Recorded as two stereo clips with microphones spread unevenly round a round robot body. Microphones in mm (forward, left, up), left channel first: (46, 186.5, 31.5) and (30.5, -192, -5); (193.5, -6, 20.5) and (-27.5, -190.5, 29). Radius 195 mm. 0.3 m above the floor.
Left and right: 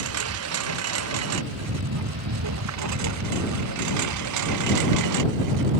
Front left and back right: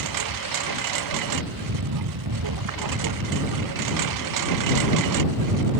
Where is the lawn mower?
150° right; by 5.8 s 135° right.